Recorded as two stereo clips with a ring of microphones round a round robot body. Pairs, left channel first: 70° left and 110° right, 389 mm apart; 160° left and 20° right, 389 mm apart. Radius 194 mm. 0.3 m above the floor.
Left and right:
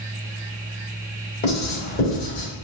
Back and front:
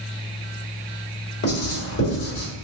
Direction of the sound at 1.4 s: 125° left.